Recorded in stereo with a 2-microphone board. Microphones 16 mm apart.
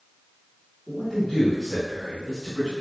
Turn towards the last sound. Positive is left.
turn(degrees=35)  # may be behind; listen again after turning